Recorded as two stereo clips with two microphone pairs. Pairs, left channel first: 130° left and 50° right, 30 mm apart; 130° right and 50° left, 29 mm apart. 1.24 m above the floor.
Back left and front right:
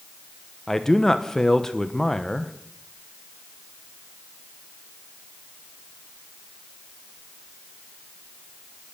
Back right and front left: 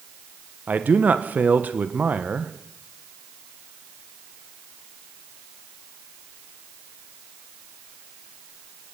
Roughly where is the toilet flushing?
I don't hear a toilet flushing.